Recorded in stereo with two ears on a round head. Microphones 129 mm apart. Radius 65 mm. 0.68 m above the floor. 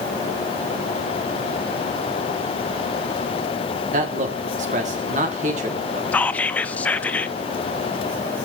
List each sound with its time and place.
3.9 s a man speaking: 55° right (ahead or behind), 1.6 m
6.1 s whispering: 10° left (ahead or behind), 0.5 m